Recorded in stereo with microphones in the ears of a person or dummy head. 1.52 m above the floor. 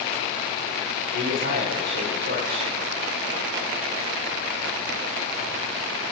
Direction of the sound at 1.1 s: 45° right (ahead or behind).